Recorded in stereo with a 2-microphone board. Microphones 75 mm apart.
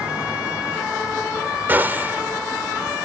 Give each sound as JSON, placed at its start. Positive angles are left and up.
{"t": 1.7, "sound": "a gunshot", "side_deg": -25}